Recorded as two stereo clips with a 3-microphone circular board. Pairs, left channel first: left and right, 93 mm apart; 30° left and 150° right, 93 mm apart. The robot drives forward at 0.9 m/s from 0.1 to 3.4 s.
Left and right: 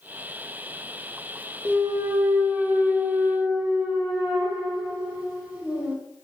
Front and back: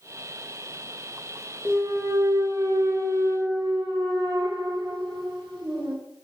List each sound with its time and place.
1.6 s a clunk: 80° right, 0.9 m; by 6.0 s 160° right, 1.7 m